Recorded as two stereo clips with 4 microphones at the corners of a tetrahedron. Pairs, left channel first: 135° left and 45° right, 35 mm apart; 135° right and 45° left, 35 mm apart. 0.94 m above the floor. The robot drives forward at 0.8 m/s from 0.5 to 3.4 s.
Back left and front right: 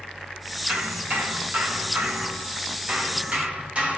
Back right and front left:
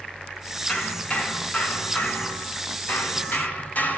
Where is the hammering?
70° right, 4.5 m; by 4.0 s 95° right, 4.5 m.